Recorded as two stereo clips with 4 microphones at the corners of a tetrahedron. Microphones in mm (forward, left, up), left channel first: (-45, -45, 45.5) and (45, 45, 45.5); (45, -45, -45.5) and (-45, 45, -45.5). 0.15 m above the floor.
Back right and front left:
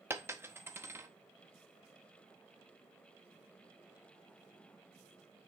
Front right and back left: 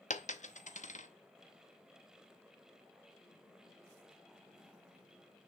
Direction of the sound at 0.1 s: 25° right.